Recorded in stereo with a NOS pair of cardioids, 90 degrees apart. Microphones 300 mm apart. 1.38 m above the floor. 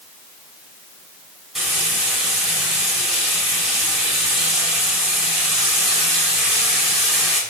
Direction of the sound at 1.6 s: Straight ahead.